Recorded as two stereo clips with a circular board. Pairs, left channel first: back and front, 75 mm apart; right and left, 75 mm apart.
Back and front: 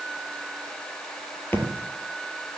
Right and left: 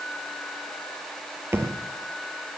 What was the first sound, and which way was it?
A thud, 130° left.